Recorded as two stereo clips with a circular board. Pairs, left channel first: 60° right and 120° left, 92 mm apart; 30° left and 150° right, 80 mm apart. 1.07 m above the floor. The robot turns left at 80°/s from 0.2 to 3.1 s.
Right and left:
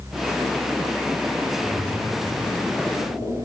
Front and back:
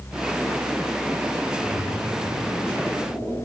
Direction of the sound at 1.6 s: 25° left.